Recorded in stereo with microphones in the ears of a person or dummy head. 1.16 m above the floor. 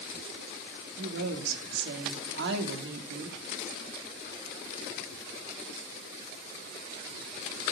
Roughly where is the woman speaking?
Right.